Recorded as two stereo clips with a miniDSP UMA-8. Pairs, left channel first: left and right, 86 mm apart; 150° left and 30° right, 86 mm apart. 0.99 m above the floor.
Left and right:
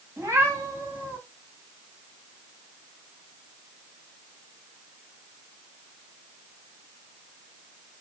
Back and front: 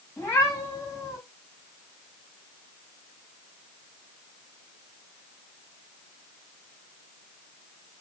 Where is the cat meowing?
150° right, 3 m; by 1.2 s 160° right, 3.5 m.